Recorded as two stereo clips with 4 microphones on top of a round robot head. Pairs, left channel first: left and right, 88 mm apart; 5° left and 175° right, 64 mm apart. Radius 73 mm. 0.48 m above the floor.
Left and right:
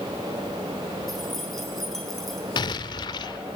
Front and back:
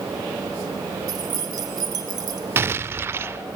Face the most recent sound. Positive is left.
turn(degrees=130)